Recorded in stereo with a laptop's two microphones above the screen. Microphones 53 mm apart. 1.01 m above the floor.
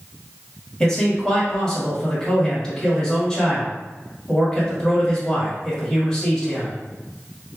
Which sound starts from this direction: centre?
A man speaking, at 0.8 s.